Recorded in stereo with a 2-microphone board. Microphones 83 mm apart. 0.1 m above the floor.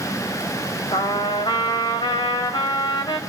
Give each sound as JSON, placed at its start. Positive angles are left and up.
{"t": 0.9, "sound": "a trumpet", "side_deg": 65, "distance_m": 3.0}